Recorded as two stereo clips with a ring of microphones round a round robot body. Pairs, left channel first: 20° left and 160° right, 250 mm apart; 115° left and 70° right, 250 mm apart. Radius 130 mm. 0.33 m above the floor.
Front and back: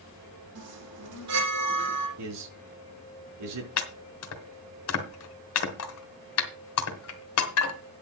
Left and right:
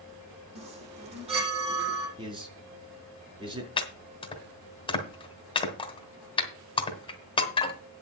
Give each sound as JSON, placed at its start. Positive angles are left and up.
{"t": 0.6, "sound": "a chime", "azimuth_deg": -135, "distance_m": 7.0}
{"t": 2.2, "sound": "a man speaking", "azimuth_deg": -140, "distance_m": 4.5}
{"t": 3.8, "sound": "chopping", "azimuth_deg": 45, "distance_m": 2.0}